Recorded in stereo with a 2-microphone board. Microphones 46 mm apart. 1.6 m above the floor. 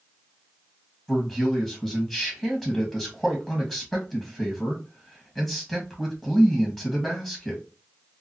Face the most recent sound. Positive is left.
turn(degrees=10)  # may be behind; listen again after turning